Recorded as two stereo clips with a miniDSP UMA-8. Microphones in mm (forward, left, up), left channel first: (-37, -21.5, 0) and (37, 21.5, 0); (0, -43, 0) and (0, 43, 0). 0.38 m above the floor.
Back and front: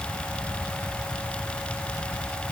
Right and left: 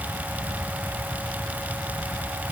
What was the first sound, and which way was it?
Only background noise.